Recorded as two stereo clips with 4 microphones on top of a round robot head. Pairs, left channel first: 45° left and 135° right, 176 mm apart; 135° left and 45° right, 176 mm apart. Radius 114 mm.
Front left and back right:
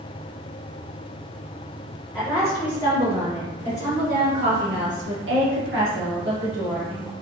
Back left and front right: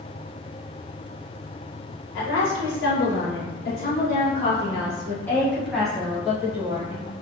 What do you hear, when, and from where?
2.1 s a woman speaking: 135° left, 1.6 m; by 7.1 s 125° right, 2.5 m